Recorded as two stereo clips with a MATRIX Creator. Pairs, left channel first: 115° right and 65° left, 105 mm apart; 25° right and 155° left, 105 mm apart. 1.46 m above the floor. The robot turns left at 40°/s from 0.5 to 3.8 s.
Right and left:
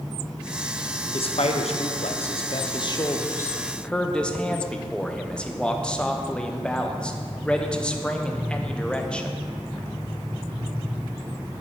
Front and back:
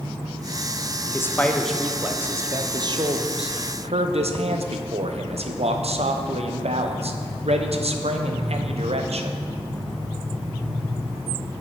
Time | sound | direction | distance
1.1 | a man speaking | 85° right | 0.7 m